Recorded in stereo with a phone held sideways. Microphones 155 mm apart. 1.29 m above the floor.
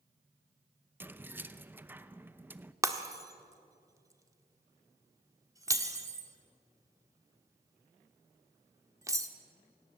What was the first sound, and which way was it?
Keys jangling, 10° right (ahead or behind).